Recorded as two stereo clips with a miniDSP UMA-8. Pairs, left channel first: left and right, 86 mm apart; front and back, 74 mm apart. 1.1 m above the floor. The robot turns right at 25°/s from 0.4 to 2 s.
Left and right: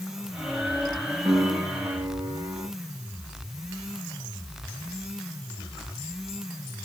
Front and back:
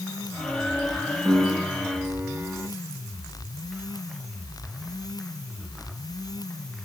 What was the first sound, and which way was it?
A piano, 135° right.